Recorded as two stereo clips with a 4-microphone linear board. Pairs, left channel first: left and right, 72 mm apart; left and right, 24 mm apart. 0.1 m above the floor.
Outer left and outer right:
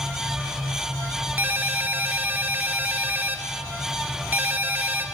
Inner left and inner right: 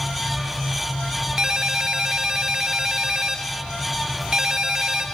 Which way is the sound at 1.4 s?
30° right (ahead or behind).